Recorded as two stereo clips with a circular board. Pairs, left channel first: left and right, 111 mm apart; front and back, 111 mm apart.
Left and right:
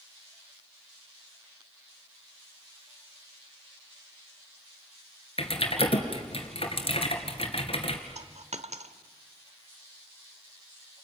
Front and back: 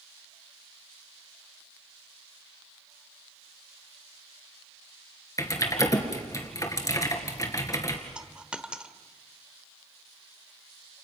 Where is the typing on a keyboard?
60° left, 2.5 m.